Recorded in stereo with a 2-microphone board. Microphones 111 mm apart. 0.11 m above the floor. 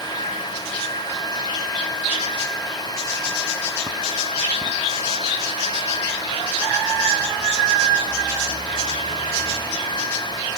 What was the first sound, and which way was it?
Only background noise.